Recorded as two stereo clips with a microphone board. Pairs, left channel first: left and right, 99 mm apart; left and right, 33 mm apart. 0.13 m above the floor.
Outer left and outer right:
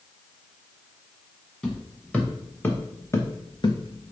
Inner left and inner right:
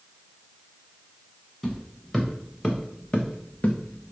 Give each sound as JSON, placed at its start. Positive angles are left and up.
{"t": 1.6, "sound": "footsteps", "side_deg": 10, "distance_m": 1.6}